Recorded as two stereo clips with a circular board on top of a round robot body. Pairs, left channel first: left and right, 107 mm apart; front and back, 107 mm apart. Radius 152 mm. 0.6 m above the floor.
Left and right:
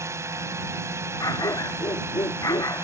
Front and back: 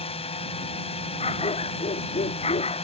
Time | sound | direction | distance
0.0 | a drone | 25° right | ?
1.2 | a dog barking | 30° left | ?